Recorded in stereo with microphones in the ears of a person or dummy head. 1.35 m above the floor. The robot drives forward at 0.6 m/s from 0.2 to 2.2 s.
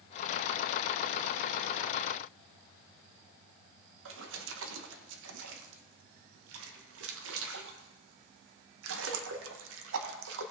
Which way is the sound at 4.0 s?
75° right (ahead or behind).